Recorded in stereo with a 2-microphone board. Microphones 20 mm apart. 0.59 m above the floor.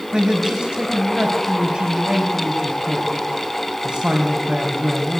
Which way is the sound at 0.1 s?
65° right (ahead or behind).